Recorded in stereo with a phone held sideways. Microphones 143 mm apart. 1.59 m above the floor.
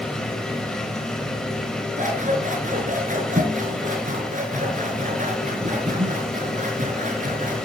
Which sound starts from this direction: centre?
A machine running, at 0.0 s.